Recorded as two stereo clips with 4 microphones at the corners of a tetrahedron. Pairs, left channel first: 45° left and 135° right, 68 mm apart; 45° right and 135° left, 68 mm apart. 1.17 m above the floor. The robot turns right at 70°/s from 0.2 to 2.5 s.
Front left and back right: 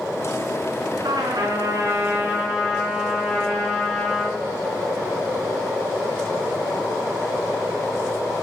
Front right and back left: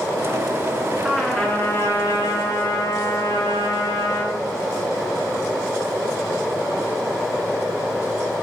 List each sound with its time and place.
1.0 s a trumpet: 150° right, 4.5 m; by 4.4 s 50° right, 4.5 m